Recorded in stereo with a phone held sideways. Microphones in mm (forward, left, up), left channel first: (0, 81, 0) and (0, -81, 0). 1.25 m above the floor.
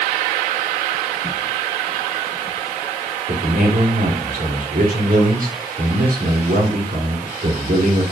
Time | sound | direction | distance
3.3 | a man speaking | 60° right (ahead or behind) | 2.5 m